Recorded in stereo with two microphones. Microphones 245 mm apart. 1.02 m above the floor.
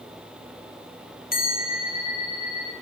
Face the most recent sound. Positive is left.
turn(degrees=35)  # may be behind; listen again after turning